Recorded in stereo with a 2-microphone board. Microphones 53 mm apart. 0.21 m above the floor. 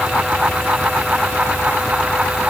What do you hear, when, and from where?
Only background noise.